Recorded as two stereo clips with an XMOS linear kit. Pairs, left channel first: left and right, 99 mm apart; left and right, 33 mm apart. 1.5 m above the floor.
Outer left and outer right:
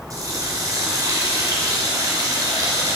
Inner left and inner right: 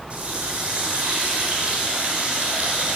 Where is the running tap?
35° right (ahead or behind), 4 m.